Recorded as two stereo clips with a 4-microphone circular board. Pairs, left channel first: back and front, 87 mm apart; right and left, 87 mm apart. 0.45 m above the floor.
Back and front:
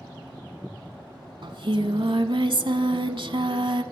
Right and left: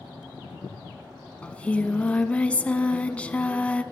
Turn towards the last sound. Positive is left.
turn(degrees=-15)